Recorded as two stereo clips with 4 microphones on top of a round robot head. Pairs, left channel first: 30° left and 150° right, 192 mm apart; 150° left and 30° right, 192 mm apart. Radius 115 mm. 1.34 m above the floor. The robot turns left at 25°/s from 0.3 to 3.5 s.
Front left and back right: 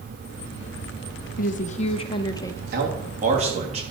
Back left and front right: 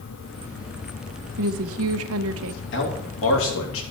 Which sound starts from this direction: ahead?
A woman speaking, at 1.4 s.